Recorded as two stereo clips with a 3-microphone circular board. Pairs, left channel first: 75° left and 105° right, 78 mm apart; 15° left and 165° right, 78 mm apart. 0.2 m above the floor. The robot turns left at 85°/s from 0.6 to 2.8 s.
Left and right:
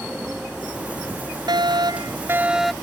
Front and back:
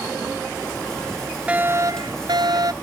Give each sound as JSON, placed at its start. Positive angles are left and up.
{"t": 1.5, "sound": "a fire alarm", "azimuth_deg": -90}